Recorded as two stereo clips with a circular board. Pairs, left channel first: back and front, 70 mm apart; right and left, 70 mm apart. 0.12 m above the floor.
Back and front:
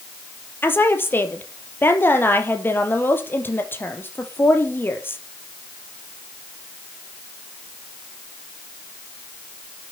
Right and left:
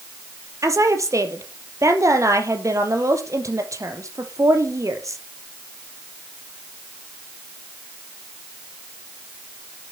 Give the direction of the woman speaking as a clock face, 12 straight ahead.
8 o'clock.